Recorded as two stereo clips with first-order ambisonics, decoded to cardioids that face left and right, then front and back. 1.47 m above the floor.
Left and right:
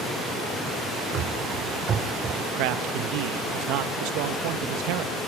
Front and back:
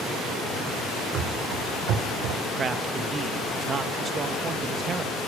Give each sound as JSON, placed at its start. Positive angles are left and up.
{"t": 1.1, "sound": "running footsteps", "azimuth_deg": -140, "distance_m": 3.5}
{"t": 2.5, "sound": "a man speaking", "azimuth_deg": -110, "distance_m": 1.4}